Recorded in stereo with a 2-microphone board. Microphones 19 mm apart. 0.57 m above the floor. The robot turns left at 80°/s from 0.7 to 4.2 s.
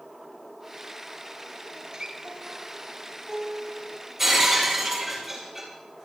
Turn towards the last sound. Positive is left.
turn(degrees=-15)  # may be behind; listen again after turning